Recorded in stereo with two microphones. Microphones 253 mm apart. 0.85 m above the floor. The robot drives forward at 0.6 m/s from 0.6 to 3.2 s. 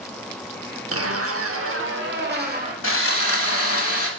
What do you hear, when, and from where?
0.9 s a zipper: 60° right (ahead or behind), 0.8 m; by 2.7 s 35° right (ahead or behind), 1.2 m
2.8 s sawing: 55° left (ahead or behind), 1.0 m; by 4.1 s 60° left (ahead or behind), 1.0 m